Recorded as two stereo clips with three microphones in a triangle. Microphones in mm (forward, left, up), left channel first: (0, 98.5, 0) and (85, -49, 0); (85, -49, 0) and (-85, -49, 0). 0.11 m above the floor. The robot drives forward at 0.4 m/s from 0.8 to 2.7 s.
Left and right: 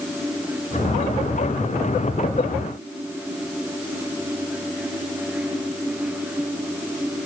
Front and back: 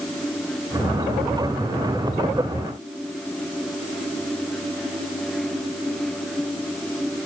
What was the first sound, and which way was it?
Only background noise.